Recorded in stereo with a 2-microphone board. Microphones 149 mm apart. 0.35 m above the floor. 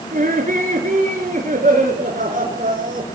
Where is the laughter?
65° right (ahead or behind), 4.5 m.